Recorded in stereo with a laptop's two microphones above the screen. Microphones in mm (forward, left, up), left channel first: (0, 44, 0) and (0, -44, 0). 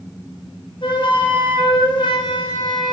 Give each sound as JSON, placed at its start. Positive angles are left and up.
{"t": 0.8, "sound": "a flute", "side_deg": 65, "distance_m": 1.7}